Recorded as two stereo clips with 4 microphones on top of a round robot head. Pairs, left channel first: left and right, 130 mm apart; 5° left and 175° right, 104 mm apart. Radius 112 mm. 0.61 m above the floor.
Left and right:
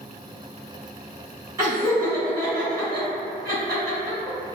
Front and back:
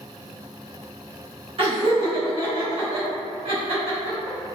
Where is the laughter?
155° right, 1.9 m.